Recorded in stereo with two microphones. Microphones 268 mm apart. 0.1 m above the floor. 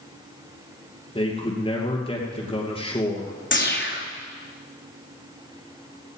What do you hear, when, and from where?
1.1 s a man speaking: 20° left (ahead or behind), 2.5 m
3.5 s a whoosh: 40° left (ahead or behind), 2.5 m